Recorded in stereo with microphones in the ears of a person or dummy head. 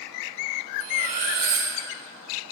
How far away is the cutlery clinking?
About 2 m.